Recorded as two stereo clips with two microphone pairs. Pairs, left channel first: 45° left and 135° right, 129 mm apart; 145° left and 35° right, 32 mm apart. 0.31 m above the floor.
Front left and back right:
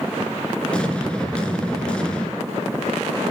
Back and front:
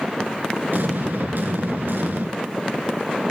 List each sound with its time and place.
0.7 s an explosion: 35° right, 3 m